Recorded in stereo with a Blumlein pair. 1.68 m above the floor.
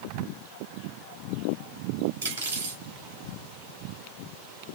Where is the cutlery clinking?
65° right, 4 m.